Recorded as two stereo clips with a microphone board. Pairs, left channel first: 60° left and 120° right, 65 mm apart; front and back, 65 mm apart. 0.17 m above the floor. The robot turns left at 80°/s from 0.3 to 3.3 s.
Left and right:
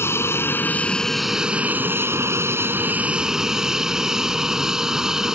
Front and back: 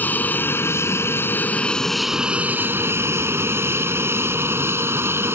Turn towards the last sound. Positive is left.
turn(degrees=165)